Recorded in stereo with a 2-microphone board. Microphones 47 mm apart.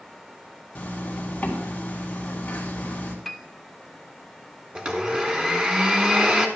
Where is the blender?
20° right (ahead or behind), 1.2 m.